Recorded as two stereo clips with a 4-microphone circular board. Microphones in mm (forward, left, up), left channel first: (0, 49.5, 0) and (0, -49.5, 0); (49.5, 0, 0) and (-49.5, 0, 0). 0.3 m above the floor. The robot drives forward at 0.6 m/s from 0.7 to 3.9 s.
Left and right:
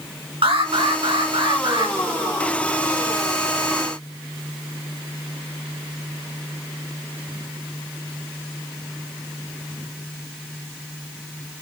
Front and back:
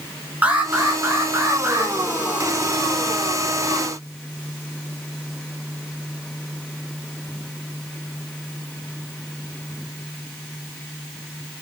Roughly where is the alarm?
Right.